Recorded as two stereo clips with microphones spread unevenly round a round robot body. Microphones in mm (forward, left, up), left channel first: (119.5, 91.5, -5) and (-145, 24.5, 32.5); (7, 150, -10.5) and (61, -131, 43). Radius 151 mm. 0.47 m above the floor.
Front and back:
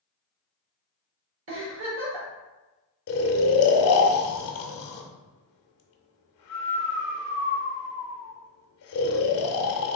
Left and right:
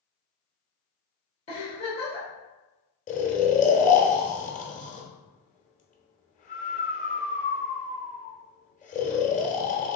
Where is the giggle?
155° left, 1.5 m.